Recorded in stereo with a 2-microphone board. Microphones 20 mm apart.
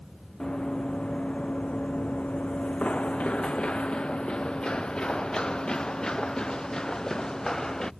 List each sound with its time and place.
0.4 s running footsteps: 45° left (ahead or behind); by 7.9 s 30° left (ahead or behind)